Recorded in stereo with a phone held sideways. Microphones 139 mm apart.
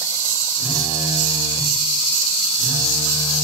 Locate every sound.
0.6 s a phone buzzing: 40° left (ahead or behind), 1.5 m